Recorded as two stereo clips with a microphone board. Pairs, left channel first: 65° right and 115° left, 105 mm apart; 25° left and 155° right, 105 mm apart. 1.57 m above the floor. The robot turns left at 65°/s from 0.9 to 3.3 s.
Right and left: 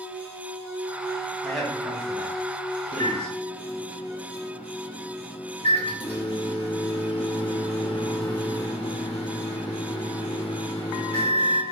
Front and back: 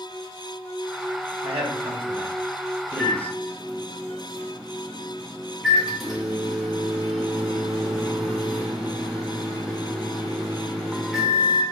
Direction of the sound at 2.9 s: 45° right.